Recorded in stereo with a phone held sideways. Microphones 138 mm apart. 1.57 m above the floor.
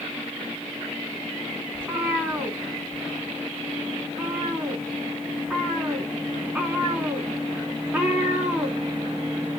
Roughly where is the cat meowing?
Centre.